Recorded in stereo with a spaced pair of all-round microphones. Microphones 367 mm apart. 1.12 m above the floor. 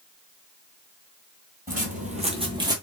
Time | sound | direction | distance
1.7 | footsteps | 25° right (ahead or behind) | 1.2 m